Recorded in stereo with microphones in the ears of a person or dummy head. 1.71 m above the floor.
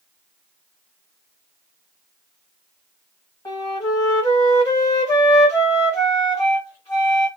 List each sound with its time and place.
3.5 s a flute: 25° left (ahead or behind), 1.3 m